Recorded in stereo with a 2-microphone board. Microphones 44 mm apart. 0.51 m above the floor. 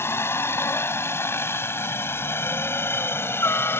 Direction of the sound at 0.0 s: 70° left (ahead or behind).